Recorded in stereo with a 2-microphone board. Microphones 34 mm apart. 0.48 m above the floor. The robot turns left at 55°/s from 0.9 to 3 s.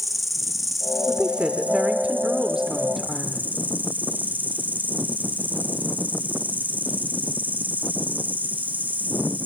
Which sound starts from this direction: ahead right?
A woman speaking, at 1.1 s.